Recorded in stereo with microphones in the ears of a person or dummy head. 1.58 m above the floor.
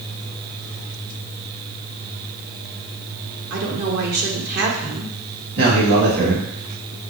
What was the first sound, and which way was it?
A woman speaking, 55° right (ahead or behind).